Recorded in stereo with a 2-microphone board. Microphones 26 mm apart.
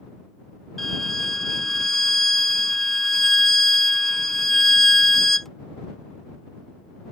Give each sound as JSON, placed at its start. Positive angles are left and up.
{"t": 0.8, "sound": "a violin", "side_deg": 15}